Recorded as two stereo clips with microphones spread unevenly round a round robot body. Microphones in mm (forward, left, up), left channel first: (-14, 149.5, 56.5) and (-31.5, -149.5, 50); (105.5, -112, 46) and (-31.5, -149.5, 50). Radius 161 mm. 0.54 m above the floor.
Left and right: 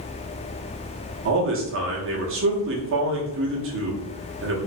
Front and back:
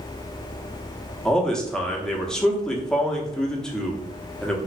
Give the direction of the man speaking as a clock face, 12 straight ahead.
2 o'clock.